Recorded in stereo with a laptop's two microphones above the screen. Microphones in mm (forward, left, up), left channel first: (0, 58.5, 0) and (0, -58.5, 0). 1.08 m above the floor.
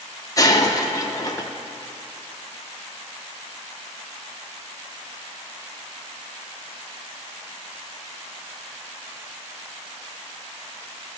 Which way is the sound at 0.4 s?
30° left (ahead or behind).